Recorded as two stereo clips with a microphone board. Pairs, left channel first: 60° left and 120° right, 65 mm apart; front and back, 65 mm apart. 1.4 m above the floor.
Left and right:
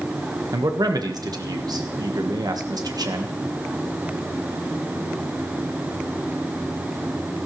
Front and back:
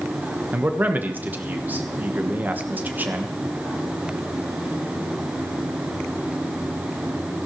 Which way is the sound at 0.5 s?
115° right.